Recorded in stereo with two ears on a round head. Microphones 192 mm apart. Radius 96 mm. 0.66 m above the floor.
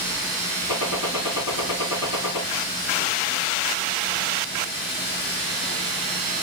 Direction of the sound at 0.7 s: 70° left (ahead or behind).